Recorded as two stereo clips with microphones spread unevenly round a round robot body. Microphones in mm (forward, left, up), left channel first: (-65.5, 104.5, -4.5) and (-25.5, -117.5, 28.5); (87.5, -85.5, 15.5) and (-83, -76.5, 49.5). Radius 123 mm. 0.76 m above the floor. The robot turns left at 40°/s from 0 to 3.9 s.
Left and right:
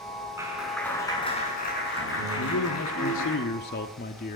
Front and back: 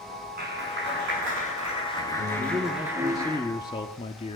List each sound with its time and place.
0.4 s a clap: 155° right, 7.5 m; by 3.4 s 85° left, 7.5 m
2.4 s a man speaking: 115° left, 1.3 m; by 4.4 s 50° left, 1.3 m